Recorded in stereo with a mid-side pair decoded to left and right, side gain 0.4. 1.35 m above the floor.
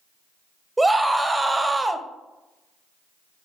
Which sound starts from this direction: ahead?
A scream, at 0.8 s.